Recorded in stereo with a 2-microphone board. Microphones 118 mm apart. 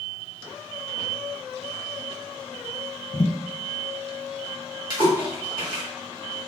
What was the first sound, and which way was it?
A thud, 50° left (ahead or behind).